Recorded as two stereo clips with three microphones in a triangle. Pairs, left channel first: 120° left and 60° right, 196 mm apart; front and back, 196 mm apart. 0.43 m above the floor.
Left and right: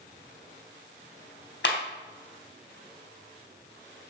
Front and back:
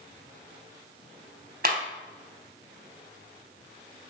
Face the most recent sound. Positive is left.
turn(degrees=140)